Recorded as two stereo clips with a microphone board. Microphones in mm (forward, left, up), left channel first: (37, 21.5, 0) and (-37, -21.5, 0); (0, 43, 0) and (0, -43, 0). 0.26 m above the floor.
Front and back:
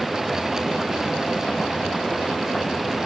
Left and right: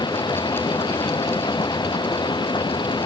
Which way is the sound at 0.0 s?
120° left.